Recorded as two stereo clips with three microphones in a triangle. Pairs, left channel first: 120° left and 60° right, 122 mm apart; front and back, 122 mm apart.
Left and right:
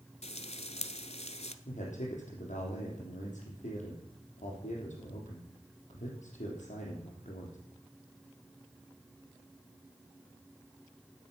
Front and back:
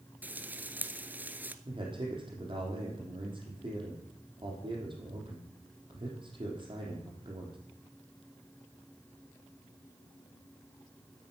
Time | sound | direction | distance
0.2 | frying | 105° left | 0.7 m
1.6 | a man speaking | 130° left | 5 m